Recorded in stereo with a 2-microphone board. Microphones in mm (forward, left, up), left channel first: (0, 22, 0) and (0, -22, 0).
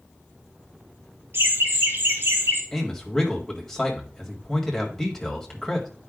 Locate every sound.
1.3 s laughter: 65° right (ahead or behind), 3 m
2.7 s a man speaking: 10° left (ahead or behind), 1.7 m